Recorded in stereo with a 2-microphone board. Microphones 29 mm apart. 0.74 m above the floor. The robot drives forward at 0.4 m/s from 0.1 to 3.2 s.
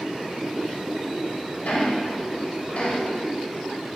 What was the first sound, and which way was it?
Ticking, 80° left.